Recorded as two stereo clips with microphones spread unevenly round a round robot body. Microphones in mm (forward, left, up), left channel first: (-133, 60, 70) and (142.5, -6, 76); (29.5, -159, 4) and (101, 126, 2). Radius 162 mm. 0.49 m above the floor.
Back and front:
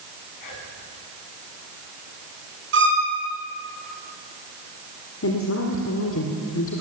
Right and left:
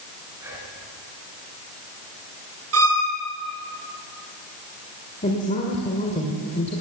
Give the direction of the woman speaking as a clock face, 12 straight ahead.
6 o'clock.